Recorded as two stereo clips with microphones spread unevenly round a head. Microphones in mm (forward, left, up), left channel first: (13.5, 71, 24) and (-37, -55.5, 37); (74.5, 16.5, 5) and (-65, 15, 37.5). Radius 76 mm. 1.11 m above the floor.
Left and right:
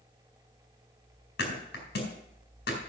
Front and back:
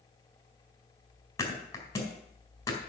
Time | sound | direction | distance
1.4 | a thud | 75° left | 4 m